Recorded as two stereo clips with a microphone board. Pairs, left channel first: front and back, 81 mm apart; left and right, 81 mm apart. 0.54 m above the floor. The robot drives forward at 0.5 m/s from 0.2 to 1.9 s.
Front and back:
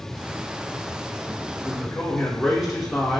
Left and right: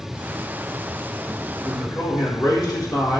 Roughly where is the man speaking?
Left.